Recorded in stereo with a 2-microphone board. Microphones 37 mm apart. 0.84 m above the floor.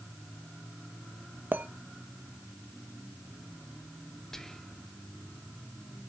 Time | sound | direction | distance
1.5 | a clink | 60° right (ahead or behind) | 0.7 m
4.3 | whispering | 15° left (ahead or behind) | 0.6 m